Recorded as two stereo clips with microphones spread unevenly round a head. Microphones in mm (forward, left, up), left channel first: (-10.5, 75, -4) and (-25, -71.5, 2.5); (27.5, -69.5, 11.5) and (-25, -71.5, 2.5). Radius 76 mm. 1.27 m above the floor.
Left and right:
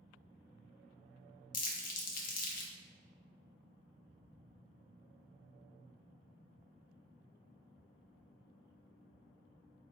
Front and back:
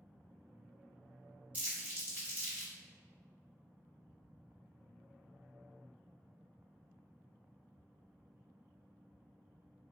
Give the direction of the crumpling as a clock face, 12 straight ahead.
9 o'clock.